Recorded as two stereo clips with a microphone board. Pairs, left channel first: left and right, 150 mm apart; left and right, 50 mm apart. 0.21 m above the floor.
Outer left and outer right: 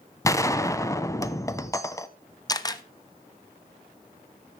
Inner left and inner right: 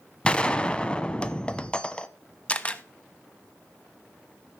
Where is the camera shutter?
25° left (ahead or behind), 0.8 m.